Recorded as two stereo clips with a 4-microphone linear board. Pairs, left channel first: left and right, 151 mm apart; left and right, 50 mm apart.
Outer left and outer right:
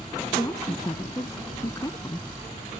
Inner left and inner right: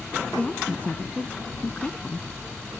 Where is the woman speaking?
25° left (ahead or behind).